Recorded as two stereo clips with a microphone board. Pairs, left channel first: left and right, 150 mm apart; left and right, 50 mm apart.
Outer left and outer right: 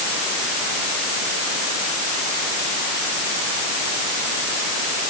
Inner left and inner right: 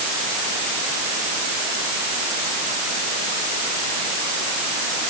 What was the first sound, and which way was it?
Only background noise.